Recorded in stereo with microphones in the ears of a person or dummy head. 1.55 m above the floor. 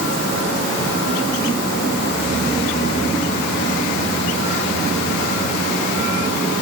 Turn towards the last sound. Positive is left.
No sound to turn to.